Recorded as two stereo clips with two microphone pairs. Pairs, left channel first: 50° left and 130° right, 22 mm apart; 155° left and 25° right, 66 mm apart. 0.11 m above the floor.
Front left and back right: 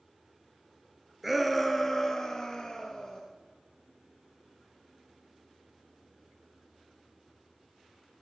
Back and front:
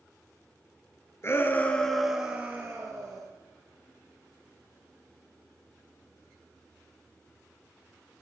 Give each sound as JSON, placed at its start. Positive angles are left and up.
{"t": 1.2, "sound": "a shout", "azimuth_deg": 145, "distance_m": 1.4}